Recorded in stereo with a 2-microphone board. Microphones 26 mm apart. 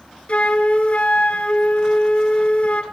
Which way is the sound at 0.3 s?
50° left (ahead or behind).